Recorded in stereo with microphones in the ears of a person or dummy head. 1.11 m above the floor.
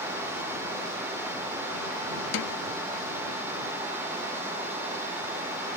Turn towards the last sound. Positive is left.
turn(degrees=60)  # may be behind; listen again after turning